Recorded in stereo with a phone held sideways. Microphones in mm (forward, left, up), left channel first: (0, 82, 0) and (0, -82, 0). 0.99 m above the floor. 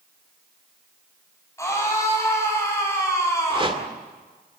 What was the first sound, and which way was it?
A scream, 20° left (ahead or behind).